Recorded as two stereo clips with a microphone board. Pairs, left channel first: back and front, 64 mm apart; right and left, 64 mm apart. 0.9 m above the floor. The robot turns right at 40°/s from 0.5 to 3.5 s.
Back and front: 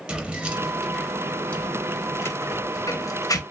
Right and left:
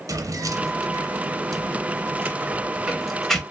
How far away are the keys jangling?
About 0.6 m.